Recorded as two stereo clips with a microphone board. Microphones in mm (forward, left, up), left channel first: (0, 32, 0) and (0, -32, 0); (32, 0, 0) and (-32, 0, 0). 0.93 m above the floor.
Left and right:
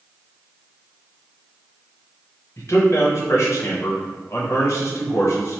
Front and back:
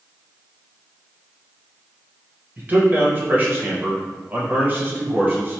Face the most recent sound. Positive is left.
turn(degrees=120)